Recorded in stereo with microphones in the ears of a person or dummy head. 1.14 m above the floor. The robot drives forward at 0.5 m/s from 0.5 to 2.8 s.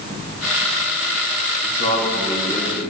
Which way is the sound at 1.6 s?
60° left (ahead or behind).